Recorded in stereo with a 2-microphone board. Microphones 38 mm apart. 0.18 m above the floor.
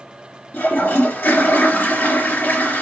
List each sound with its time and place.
0.5 s a toilet flushing: 60° left (ahead or behind), 3.5 m